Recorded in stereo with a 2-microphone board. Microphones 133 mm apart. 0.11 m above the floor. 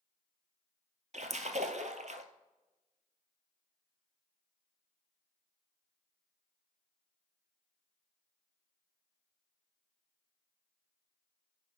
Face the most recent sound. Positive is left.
turn(degrees=-65)  # may be behind; listen again after turning